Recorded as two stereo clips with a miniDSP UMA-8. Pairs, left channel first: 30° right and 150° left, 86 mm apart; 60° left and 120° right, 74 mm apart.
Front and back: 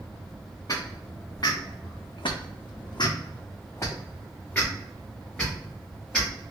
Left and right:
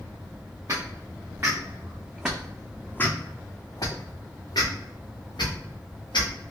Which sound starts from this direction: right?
Footsteps, at 0.7 s.